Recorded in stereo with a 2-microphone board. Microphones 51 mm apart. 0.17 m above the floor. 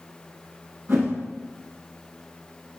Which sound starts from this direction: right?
A whoosh, at 0.9 s.